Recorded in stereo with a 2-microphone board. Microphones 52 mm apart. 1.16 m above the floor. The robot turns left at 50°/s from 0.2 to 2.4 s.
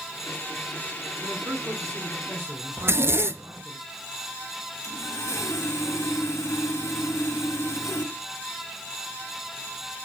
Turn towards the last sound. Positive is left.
turn(degrees=65)  # may be behind; listen again after turning